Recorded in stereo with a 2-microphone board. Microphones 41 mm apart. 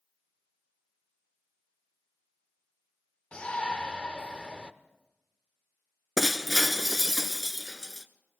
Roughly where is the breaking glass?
Centre.